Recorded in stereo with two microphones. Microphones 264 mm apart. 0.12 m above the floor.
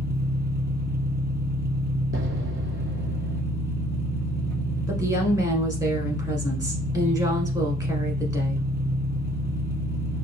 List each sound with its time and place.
0.0 s an engine running: 35° right (ahead or behind), 0.8 m
2.1 s an explosion: 50° right (ahead or behind), 0.7 m
4.9 s a woman speaking: 15° right (ahead or behind), 1.1 m